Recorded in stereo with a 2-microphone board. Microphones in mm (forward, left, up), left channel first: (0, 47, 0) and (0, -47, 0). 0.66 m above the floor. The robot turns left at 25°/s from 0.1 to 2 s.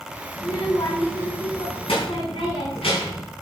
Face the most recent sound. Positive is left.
turn(degrees=95)